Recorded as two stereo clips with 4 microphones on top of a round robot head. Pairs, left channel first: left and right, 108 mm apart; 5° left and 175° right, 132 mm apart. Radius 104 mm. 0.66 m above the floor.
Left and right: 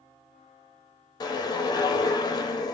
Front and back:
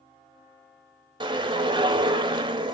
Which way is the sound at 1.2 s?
135° left.